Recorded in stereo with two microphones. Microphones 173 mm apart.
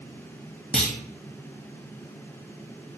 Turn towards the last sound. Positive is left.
turn(degrees=5)  # may be behind; listen again after turning